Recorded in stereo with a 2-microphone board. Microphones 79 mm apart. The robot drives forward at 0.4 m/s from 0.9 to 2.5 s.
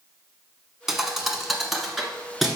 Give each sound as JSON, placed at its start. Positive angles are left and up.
{"t": 0.9, "sound": "a thud", "side_deg": -5, "distance_m": 1.0}